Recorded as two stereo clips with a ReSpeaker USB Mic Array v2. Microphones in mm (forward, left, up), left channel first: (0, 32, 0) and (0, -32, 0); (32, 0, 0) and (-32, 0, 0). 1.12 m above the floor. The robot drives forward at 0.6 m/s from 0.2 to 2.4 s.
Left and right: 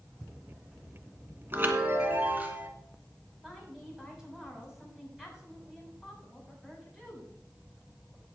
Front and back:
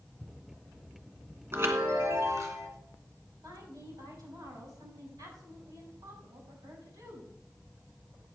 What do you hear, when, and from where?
1.5 s a chime: 135° right, 1.7 m; by 2.7 s 150° right, 2 m
3.4 s a woman speaking: 175° right, 6.5 m